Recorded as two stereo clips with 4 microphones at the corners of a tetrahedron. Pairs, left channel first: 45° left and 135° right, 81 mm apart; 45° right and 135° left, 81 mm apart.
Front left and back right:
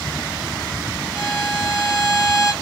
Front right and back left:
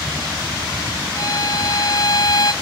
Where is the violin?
50° right, 1.6 m.